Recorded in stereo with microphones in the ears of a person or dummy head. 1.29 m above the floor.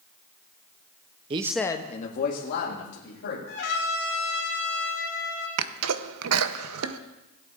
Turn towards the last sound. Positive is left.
turn(degrees=-75)  # may be behind; listen again after turning